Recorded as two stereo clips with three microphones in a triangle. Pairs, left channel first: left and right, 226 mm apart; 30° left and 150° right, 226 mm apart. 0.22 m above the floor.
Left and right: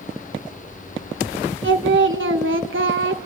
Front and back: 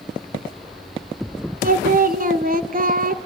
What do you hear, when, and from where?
1.6 s singing: 105° right, 0.8 m